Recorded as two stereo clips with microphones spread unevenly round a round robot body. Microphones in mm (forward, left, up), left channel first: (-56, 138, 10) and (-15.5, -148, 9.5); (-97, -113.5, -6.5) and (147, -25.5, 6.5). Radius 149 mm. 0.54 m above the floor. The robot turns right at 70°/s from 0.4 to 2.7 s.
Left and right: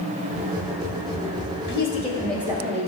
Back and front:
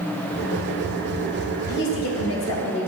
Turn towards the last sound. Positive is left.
turn(degrees=-145)